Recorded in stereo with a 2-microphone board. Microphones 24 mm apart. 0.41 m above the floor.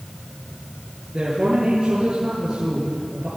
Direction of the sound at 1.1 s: 25° right (ahead or behind).